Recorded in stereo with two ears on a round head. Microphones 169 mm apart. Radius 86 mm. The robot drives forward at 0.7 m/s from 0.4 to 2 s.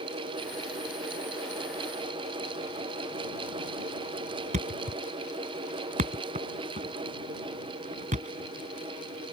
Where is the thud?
40° right (ahead or behind).